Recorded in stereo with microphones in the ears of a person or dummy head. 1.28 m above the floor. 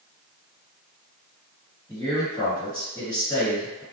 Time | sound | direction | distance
1.9 | a man speaking | 20° left (ahead or behind) | 1.5 m